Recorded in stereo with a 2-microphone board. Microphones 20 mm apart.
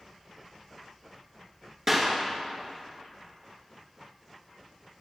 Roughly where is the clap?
Right.